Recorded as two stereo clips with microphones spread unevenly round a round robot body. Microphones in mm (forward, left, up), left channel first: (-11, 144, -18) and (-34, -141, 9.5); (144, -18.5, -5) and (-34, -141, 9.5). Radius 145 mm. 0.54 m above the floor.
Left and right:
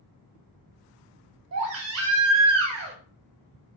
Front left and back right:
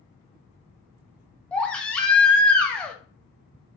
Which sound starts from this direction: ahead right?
A baby crying, at 1.5 s.